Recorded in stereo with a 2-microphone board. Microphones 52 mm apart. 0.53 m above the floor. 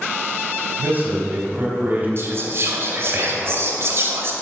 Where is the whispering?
55° right (ahead or behind), 2 m.